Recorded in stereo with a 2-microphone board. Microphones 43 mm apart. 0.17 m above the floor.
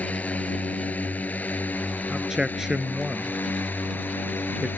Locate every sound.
0.0 s a drone: 35° left (ahead or behind); by 4.8 s 50° left (ahead or behind)
2.1 s a man speaking: 10° right (ahead or behind)